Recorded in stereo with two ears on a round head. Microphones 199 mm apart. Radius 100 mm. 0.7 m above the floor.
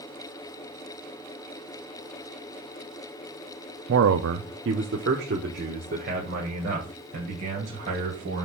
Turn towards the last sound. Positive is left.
turn(degrees=-35)  # may be behind; listen again after turning